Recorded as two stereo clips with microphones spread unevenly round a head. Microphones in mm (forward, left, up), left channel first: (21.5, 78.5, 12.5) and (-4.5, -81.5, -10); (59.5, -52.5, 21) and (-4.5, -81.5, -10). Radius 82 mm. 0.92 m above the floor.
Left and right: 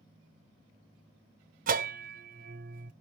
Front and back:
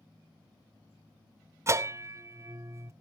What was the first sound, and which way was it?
A bell, 130° right.